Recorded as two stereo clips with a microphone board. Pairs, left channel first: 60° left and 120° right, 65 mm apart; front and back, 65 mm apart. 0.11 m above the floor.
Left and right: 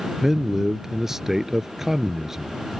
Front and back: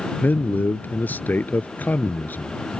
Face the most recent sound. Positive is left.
turn(degrees=-40)